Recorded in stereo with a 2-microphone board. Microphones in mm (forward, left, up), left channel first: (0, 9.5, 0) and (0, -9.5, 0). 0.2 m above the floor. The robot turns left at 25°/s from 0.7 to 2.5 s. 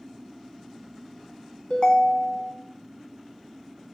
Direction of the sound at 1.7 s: 45° left (ahead or behind).